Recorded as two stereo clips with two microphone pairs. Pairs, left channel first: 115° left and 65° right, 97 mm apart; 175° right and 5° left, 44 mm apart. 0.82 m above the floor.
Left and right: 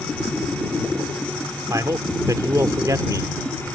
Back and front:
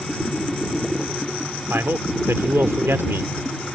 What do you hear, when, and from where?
1.7 s a man speaking: 15° right